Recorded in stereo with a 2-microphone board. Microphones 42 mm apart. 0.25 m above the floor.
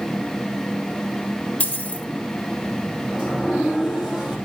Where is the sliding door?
10° right (ahead or behind), 3.5 m.